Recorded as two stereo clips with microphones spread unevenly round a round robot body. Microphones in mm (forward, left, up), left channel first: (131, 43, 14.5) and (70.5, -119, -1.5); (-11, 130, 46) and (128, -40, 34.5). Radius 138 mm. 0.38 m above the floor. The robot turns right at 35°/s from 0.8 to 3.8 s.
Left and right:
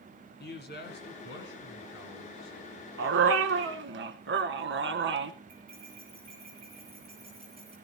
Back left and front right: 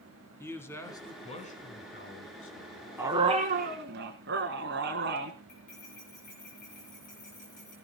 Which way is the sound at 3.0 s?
135° right.